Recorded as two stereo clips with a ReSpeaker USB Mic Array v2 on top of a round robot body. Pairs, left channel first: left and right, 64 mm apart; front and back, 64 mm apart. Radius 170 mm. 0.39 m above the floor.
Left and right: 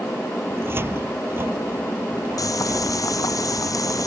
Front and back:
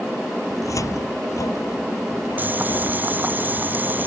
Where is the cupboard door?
35° right.